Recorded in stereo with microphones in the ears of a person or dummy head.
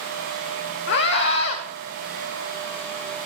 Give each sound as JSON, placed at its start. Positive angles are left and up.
{"t": 0.9, "sound": "a scream", "side_deg": 65, "distance_m": 1.4}